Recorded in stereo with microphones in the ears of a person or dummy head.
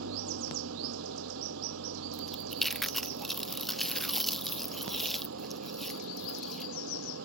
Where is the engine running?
75° right (ahead or behind).